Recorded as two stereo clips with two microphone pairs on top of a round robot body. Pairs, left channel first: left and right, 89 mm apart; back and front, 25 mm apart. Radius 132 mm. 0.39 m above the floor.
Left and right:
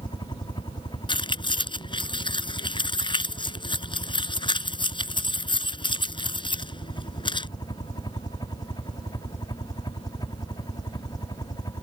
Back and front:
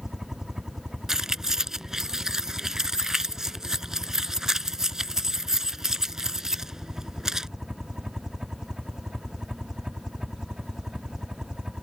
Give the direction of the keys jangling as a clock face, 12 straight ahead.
10 o'clock.